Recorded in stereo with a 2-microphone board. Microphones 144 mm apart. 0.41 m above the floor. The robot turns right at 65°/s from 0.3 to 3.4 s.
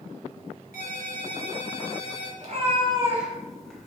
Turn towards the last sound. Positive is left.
turn(degrees=0)